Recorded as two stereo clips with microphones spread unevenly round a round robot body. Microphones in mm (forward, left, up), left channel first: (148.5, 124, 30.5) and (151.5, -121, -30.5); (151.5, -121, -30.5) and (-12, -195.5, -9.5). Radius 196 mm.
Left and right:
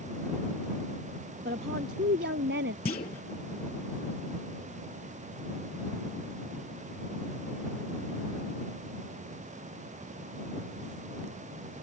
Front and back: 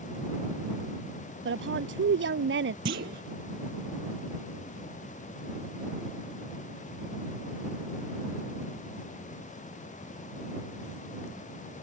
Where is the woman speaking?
160° right; by 2.8 s 155° right.